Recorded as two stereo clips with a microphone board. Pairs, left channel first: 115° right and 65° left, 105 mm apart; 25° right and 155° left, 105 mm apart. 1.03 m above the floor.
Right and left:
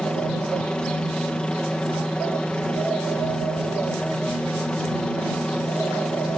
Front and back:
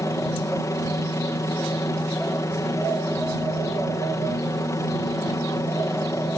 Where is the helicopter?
40° right.